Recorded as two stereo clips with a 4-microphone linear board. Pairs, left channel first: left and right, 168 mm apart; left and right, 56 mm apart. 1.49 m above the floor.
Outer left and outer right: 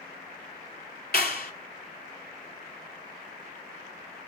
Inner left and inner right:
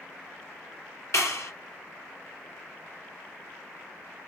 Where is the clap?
65° left (ahead or behind), 2 m.